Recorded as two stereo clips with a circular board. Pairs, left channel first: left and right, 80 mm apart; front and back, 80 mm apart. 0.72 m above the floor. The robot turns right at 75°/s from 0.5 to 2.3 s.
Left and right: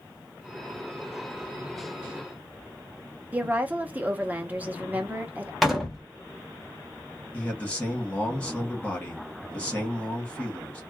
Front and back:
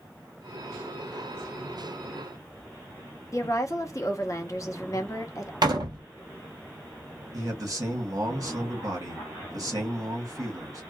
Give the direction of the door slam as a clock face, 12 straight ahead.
6 o'clock.